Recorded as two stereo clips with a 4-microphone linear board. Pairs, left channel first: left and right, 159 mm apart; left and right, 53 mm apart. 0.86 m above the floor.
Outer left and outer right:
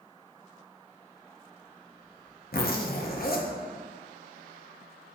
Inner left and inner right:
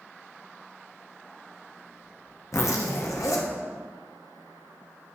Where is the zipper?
70° left (ahead or behind), 0.7 m.